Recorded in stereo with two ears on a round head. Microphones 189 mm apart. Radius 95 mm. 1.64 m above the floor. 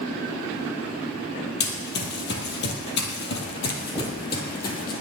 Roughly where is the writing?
Centre.